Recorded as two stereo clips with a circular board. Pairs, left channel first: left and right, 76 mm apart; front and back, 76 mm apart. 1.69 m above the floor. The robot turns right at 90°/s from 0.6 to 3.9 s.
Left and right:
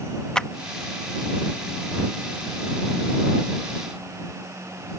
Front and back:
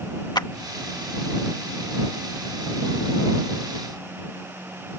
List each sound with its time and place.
0.3 s a clap: 10° left